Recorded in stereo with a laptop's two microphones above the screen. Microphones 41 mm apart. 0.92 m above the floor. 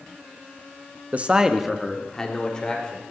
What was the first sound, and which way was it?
A man speaking, 45° right (ahead or behind).